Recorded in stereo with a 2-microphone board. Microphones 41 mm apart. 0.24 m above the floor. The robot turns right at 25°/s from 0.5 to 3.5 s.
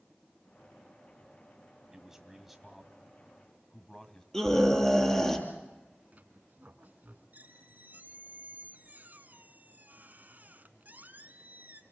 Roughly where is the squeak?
Right.